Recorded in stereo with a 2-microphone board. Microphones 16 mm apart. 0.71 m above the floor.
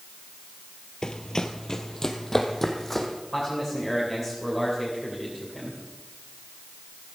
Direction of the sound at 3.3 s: 10° right (ahead or behind).